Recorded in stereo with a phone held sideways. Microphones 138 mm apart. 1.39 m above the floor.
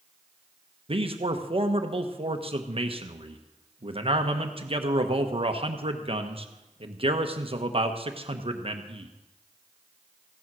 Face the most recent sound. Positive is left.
turn(degrees=-45)  # may be behind; listen again after turning